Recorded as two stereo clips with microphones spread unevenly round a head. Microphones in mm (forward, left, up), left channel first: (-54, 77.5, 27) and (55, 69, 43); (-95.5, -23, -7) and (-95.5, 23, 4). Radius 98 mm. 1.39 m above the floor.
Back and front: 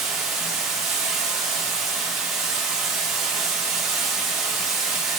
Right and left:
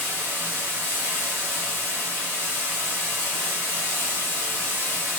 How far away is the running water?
About 1.0 m.